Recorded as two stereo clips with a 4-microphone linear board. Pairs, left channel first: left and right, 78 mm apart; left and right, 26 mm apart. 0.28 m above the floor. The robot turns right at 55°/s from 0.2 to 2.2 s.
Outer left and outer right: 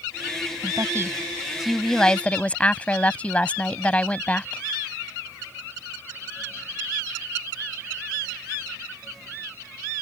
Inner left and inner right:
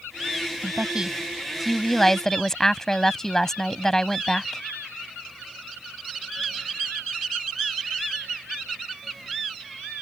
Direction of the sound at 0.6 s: 65° right.